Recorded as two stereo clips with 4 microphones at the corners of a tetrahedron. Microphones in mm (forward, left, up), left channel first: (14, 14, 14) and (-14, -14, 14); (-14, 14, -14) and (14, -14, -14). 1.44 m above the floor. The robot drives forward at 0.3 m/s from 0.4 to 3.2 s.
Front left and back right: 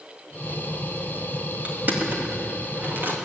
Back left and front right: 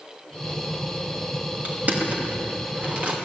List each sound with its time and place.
1.6 s crushing: 90° right, 2.5 m; by 3.1 s 100° right, 2.5 m